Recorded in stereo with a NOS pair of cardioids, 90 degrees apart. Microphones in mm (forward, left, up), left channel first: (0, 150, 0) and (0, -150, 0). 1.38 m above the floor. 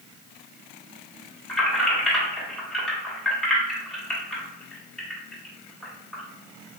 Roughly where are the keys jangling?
Ahead.